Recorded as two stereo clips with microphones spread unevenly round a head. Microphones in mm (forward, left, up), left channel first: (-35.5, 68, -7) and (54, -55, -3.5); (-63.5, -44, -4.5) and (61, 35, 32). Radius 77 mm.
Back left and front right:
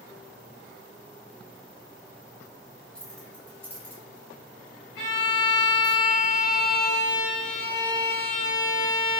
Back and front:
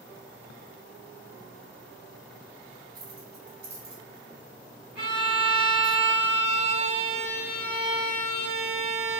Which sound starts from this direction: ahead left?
Keys jangling, at 3.0 s.